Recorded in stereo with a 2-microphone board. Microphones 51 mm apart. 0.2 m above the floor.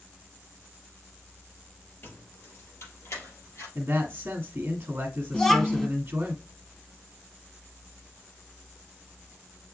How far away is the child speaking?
About 0.8 m.